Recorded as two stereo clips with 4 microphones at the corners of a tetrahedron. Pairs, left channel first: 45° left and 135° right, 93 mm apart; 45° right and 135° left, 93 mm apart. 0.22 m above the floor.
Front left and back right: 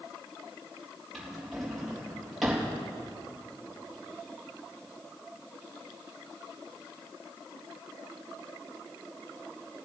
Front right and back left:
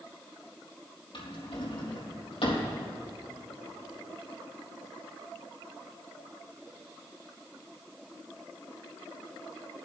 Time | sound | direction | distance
1.1 | a drawer | 45° right | 3.5 m